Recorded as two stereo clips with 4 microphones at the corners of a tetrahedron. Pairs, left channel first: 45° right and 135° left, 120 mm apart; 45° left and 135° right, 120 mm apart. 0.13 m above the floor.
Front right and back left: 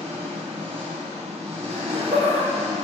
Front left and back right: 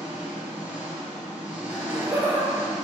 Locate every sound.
0.0 s an engine running: 150° left, 2.5 m
1.7 s laughter: 155° left, 2.5 m